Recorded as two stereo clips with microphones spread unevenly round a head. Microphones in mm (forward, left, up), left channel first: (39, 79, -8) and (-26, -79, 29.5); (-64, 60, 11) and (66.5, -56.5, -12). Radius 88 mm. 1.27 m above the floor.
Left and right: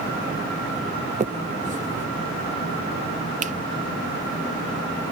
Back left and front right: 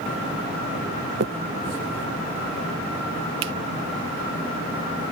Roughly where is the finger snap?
Ahead right.